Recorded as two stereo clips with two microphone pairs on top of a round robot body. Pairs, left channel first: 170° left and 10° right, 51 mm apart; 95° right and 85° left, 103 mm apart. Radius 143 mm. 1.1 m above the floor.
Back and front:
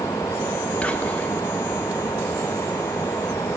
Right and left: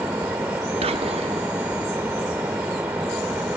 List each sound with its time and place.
0.8 s whispering: 105° left, 1.3 m